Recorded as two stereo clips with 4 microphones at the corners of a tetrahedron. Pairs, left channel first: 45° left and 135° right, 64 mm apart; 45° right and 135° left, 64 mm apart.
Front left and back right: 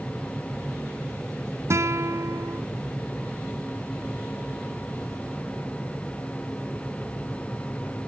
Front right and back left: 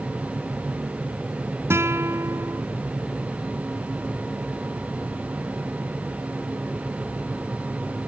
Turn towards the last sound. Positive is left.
turn(degrees=180)